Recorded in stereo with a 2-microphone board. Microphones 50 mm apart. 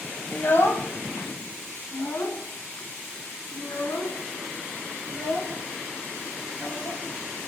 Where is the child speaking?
50° left (ahead or behind), 0.9 m; by 7.5 s 75° left (ahead or behind), 4.5 m.